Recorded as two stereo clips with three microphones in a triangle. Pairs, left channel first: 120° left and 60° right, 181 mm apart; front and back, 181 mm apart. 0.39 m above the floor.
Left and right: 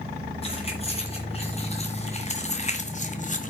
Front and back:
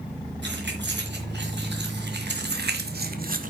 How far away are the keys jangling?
About 4 m.